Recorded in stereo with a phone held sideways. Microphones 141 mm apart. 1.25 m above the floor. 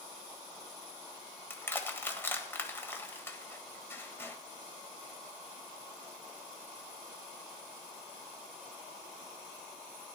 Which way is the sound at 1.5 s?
15° left (ahead or behind).